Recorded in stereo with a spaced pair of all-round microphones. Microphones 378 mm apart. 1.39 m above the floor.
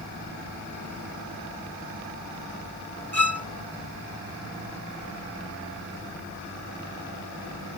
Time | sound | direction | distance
3.1 | a violin | 40° right (ahead or behind) | ?